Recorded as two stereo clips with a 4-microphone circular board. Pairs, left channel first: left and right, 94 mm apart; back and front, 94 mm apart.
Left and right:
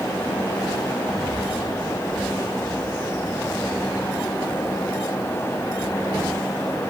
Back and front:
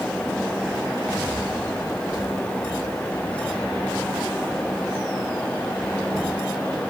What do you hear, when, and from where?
Only background noise.